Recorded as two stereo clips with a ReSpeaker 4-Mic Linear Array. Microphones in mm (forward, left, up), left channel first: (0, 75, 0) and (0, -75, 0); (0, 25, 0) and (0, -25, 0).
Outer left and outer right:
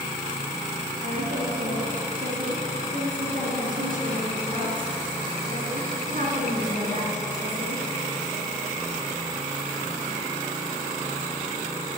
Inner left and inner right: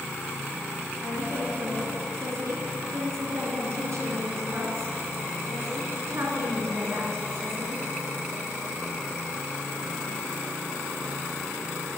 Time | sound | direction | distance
1.0 | a woman speaking | 65° right (ahead or behind) | 3.5 m